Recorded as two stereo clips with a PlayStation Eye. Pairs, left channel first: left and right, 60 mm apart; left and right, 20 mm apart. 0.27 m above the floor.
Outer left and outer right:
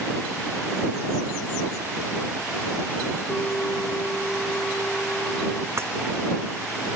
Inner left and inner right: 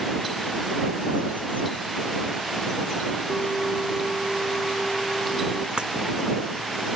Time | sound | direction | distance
3.3 | a bell | 20° left (ahead or behind) | ?
5.8 | breaking glass | 50° right (ahead or behind) | ?